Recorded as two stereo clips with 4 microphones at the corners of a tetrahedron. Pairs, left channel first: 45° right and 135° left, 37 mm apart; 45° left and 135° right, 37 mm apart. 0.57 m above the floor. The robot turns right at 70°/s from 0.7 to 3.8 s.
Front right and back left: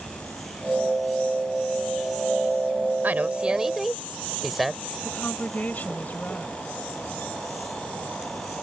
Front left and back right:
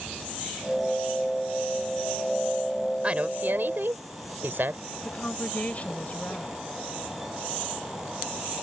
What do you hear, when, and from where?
3.0 s a woman speaking: 170° left; by 4.8 s 140° right
5.0 s a woman speaking: 5° right